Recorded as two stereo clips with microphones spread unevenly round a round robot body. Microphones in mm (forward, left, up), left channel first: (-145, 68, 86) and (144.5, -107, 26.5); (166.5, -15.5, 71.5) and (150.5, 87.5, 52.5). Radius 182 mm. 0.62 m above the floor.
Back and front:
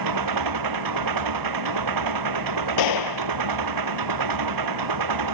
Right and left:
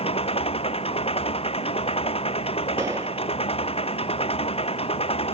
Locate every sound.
0.0 s an engine running: 60° right
2.8 s a gunshot: straight behind